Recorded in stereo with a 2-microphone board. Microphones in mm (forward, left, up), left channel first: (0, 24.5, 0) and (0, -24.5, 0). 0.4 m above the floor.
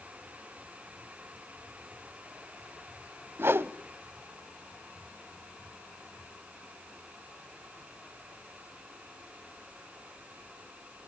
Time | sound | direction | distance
3.4 | a whoosh | 50° right (ahead or behind) | 0.7 m